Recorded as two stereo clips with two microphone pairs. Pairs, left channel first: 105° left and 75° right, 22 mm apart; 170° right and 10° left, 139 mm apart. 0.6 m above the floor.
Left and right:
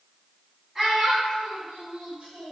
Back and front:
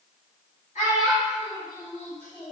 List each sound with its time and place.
0.8 s a child speaking: 155° right, 1.4 m; by 2.5 s 80° right, 1.2 m